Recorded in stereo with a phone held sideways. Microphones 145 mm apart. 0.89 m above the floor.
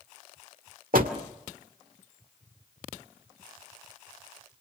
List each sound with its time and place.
0.9 s a door slam: 75° right (ahead or behind), 1.8 m